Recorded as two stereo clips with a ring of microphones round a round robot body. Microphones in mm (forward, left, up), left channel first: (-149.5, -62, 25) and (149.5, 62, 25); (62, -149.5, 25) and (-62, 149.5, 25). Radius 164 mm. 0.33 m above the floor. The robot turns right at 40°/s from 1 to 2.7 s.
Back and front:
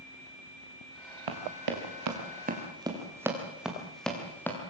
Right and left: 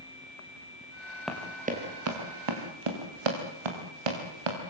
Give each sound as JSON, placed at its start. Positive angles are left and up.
{"t": 1.3, "sound": "running footsteps", "azimuth_deg": 20, "distance_m": 4.5}